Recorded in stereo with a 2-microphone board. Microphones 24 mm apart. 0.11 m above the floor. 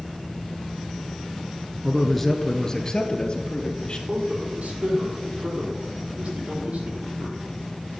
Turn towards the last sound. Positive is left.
turn(degrees=-70)  # may be behind; listen again after turning